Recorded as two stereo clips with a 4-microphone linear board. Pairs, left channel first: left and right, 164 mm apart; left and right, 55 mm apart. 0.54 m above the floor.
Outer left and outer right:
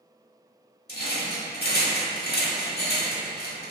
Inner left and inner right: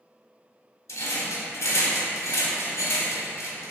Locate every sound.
0.9 s a rattle: 75° left (ahead or behind), 0.7 m